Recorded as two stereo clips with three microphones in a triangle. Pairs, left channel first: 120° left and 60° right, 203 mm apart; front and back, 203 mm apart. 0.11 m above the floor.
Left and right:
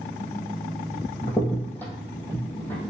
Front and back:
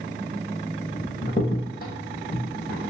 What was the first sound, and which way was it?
A crack, 40° left.